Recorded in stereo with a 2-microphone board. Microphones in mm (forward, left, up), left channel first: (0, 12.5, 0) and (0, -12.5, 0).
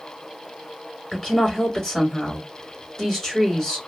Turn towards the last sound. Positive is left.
turn(degrees=15)  # may be behind; listen again after turning